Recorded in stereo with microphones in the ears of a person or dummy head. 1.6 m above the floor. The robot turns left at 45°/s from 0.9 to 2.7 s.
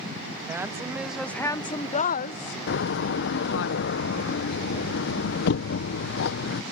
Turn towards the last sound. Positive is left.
turn(degrees=60)  # may be behind; listen again after turning